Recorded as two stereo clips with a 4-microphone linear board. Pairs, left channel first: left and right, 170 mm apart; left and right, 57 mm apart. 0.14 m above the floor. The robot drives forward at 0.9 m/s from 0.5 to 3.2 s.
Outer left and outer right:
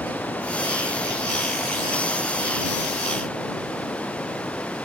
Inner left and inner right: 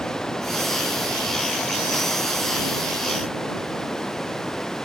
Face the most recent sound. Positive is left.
turn(degrees=5)  # may be behind; listen again after turning